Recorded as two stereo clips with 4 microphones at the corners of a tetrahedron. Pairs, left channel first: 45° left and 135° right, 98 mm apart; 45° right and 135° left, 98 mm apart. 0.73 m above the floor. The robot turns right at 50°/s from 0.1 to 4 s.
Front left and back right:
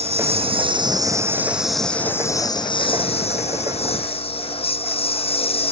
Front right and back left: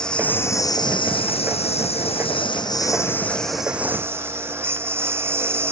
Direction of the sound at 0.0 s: 125° right.